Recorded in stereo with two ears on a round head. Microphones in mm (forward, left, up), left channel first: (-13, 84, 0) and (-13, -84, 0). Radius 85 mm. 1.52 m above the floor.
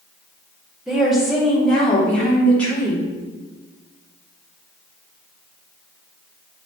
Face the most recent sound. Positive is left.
turn(degrees=10)  # may be behind; listen again after turning